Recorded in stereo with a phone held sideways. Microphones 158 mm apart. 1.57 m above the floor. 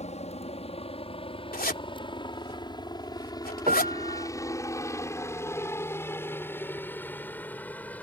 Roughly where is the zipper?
Left.